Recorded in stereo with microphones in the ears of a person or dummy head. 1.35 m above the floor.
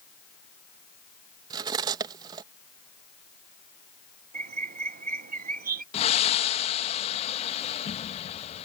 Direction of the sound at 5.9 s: 40° left (ahead or behind).